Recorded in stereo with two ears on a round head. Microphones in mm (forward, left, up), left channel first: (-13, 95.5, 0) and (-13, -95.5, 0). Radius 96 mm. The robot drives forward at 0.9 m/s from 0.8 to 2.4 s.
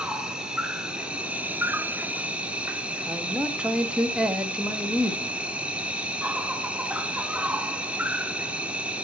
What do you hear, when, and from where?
0.0 s an insect: 5° right (ahead or behind), 1.1 m
3.1 s a man speaking: 5° right (ahead or behind), 1.3 m